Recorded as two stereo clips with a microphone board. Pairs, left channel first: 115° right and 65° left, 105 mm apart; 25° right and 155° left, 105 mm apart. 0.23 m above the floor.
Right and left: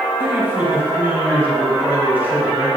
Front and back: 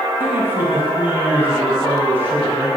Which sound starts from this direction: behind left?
A man speaking, at 0.2 s.